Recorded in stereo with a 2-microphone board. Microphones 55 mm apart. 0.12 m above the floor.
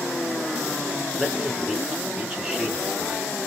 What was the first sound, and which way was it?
A man speaking, 10° right (ahead or behind).